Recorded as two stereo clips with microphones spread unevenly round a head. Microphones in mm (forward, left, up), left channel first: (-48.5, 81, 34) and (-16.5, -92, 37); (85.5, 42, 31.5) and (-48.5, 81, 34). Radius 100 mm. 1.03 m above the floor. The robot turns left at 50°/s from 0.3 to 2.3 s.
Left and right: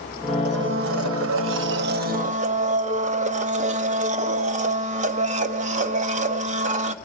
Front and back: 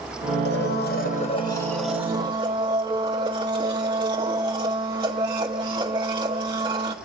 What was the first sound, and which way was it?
A blender, 35° right.